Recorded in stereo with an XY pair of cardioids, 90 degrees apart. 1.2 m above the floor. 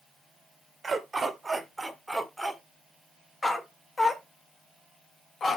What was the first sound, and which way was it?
A dog barking, 35° right.